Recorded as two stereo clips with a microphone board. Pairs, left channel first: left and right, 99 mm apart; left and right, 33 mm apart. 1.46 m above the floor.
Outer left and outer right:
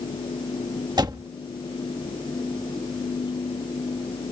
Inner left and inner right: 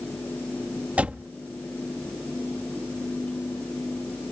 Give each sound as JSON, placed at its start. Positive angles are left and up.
{"t": 1.0, "sound": "a door slam", "side_deg": -45}